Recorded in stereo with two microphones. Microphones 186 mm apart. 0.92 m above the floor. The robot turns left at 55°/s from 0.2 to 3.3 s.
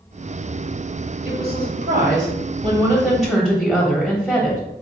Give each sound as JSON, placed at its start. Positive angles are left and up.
{"t": 1.2, "sound": "a woman speaking", "azimuth_deg": -70, "distance_m": 1.5}